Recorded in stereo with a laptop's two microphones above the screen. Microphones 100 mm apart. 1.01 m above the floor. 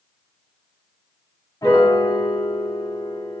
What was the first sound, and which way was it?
A piano, 35° left (ahead or behind).